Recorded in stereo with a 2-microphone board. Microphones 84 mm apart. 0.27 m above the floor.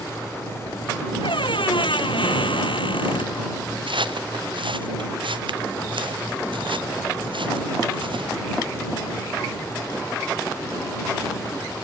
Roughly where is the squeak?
Left.